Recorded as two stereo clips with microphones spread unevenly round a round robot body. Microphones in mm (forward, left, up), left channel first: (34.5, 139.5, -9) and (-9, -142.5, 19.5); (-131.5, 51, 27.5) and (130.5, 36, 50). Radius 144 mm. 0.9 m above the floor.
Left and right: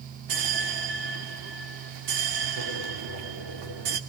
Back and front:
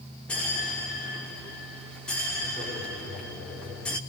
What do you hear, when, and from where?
0.3 s a bell: 95° right, 2.5 m